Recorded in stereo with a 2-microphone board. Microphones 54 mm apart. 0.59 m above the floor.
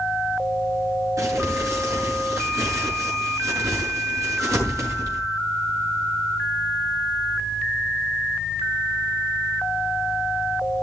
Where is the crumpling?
65° right (ahead or behind), 6 m.